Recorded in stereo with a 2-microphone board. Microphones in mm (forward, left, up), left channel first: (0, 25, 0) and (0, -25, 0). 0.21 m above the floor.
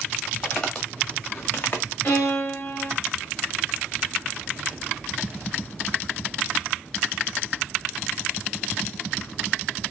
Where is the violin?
45° left (ahead or behind), 4 m.